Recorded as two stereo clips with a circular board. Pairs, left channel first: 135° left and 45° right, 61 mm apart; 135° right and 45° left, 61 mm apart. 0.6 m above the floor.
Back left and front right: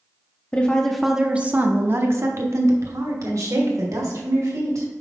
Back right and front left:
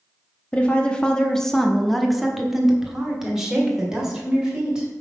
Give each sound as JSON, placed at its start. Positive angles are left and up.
{"t": 0.5, "sound": "a woman speaking", "azimuth_deg": 175, "distance_m": 0.7}